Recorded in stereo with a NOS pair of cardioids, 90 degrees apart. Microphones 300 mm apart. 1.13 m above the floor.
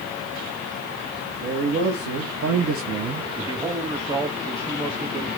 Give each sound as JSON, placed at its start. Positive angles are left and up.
{"t": 1.4, "sound": "a man speaking", "azimuth_deg": -70, "distance_m": 2.5}
{"t": 3.4, "sound": "a man speaking", "azimuth_deg": -10, "distance_m": 1.3}